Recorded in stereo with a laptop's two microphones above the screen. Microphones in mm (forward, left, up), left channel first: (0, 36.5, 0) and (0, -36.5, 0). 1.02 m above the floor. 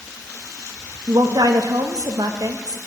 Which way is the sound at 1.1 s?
65° right (ahead or behind).